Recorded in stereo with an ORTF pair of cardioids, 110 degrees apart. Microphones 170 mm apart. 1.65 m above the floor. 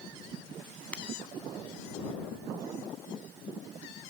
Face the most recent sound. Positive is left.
turn(degrees=5)